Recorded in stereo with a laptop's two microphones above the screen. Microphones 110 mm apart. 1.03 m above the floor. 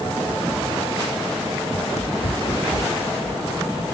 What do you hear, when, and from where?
1.7 s running footsteps: 70° left (ahead or behind); by 4.0 s 75° left (ahead or behind)